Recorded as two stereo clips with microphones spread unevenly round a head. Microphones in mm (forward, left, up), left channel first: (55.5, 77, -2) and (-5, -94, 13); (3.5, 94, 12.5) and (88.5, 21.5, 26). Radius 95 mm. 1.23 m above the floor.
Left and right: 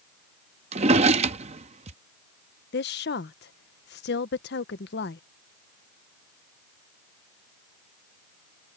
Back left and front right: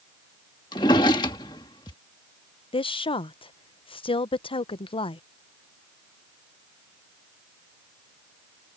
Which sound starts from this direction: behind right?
A drawer, at 0.7 s.